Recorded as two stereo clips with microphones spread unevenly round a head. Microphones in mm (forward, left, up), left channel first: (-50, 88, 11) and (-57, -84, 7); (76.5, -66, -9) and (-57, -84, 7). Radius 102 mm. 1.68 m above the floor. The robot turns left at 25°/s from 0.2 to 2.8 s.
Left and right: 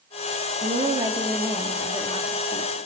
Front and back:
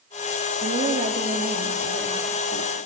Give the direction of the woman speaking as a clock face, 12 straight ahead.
5 o'clock.